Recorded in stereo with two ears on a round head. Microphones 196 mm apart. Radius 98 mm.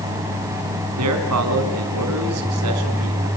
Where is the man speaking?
80° right, 5.5 m.